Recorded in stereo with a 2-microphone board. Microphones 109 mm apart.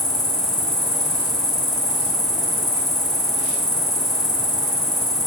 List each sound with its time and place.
0.0 s an insect: 40° left (ahead or behind), 1.0 m